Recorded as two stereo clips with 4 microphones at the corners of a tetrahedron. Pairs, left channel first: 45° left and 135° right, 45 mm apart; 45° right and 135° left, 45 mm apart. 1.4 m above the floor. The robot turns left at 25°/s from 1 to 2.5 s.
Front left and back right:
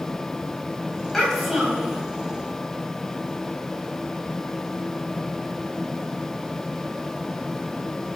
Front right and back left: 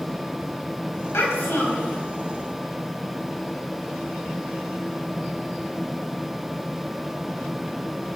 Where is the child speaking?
40° right, 4.5 m; by 2.0 s 65° right, 4.5 m.